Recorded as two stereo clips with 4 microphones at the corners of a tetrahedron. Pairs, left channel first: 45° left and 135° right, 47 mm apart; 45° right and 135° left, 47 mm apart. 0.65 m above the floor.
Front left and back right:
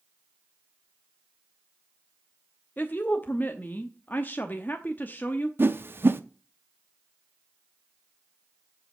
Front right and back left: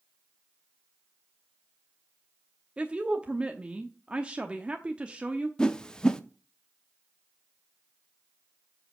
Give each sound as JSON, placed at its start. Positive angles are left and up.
{"t": 2.8, "sound": "a woman speaking", "azimuth_deg": 75, "distance_m": 0.8}
{"t": 5.6, "sound": "a whoosh", "azimuth_deg": -115, "distance_m": 0.7}